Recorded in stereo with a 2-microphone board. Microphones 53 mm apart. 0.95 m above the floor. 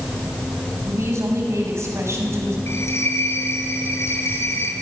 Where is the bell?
55° left (ahead or behind), 4.5 m.